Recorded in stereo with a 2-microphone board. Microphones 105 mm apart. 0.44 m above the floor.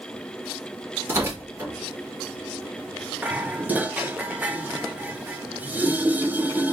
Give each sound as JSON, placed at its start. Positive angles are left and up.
{"t": 1.1, "sound": "tearing paper", "side_deg": -30, "distance_m": 3.5}
{"t": 3.2, "sound": "dishes clattering", "side_deg": -15, "distance_m": 0.6}